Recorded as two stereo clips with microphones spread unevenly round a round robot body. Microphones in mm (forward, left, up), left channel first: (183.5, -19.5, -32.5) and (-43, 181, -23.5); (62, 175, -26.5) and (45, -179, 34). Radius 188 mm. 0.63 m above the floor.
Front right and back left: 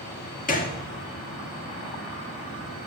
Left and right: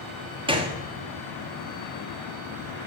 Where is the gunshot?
10° right, 1.2 m.